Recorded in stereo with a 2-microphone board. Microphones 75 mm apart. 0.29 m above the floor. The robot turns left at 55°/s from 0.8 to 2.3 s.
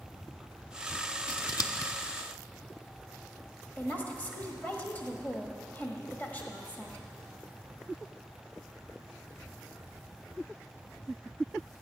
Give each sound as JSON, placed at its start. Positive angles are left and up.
{"t": 1.3, "sound": "scissors", "side_deg": 80, "distance_m": 0.7}
{"t": 3.8, "sound": "a woman speaking", "side_deg": 20, "distance_m": 1.4}